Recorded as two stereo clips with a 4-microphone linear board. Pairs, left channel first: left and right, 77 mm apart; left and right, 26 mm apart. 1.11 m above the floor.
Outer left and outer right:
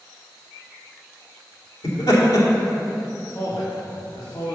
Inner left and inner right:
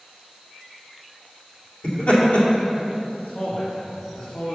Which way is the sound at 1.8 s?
65° left (ahead or behind).